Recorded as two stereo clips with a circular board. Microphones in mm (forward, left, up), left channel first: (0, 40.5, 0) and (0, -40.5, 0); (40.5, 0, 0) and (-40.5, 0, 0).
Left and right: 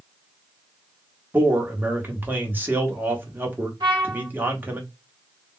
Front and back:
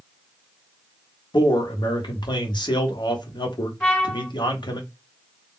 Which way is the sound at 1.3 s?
20° right.